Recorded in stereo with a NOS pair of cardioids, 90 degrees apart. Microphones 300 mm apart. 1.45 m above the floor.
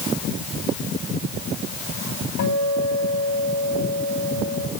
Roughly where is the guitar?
Left.